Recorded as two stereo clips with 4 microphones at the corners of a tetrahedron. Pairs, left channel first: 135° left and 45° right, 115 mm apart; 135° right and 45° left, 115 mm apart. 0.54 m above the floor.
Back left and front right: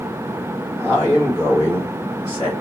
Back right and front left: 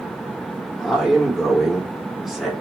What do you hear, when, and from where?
0.8 s a man speaking: 40° right, 1.3 m